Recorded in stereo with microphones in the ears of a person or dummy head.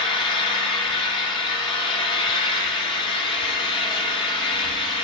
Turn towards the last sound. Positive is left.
turn(degrees=25)  # may be behind; listen again after turning